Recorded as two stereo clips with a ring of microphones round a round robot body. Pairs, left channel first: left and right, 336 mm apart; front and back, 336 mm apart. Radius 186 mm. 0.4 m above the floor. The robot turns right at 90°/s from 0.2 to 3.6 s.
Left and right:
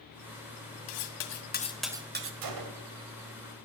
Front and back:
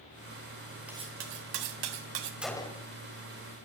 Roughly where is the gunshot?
Right.